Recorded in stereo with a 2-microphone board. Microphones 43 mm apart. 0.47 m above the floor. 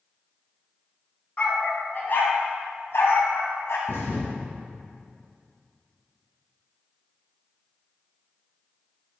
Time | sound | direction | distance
1.4 | a dog barking | 35° left (ahead or behind) | 1.5 m
3.9 | a thud | 70° left (ahead or behind) | 1.7 m